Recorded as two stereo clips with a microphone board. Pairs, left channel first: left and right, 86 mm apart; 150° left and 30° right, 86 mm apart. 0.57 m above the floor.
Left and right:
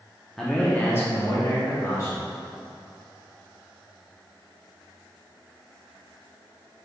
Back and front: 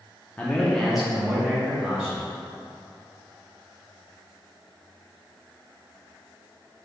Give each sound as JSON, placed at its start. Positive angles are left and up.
{"t": 0.4, "sound": "a man speaking", "azimuth_deg": 175, "distance_m": 0.6}